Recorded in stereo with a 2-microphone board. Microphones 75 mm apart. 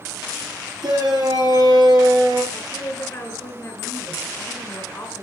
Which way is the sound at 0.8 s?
65° right (ahead or behind).